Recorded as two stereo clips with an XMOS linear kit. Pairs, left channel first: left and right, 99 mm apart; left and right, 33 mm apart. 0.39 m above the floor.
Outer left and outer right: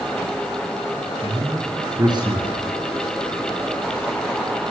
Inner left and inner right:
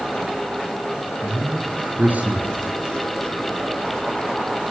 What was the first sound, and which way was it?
A man speaking, 45° right (ahead or behind).